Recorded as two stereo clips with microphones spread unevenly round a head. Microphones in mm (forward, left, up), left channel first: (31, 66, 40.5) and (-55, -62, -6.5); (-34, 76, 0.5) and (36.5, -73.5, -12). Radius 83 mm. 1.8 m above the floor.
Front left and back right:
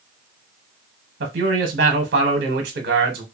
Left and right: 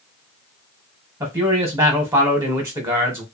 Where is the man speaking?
140° right, 0.9 m.